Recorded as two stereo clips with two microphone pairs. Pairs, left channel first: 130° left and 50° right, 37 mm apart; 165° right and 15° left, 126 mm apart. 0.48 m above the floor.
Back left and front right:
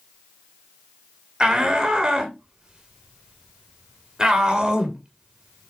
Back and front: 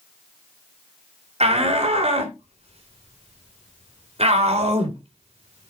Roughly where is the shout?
Ahead.